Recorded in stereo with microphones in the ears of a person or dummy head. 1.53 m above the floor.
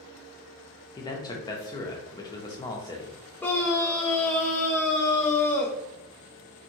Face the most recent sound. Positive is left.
turn(degrees=5)  # may be behind; listen again after turning